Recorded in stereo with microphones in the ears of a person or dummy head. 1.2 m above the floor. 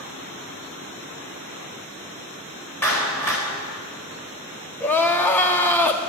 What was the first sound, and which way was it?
A clap, 15° left (ahead or behind).